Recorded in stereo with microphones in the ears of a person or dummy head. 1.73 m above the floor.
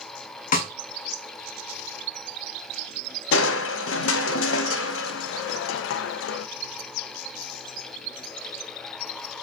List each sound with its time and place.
0.5 s a snare drum: 45° left (ahead or behind), 1.1 m
3.3 s crushing: 85° left, 0.6 m